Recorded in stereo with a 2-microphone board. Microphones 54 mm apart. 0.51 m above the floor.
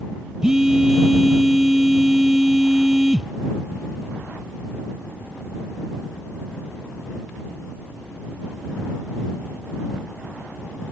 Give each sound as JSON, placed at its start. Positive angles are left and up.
{"t": 0.4, "sound": "a phone buzzing", "side_deg": -10}